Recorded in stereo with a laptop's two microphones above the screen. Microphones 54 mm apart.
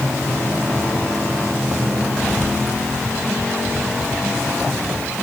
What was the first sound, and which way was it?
Only background noise.